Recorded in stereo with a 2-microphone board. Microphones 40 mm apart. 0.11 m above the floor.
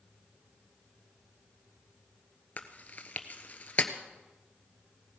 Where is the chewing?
40° left (ahead or behind), 1.1 m.